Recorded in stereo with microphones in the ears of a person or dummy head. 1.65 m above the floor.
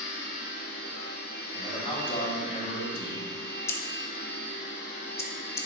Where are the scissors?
10° left (ahead or behind), 0.7 m.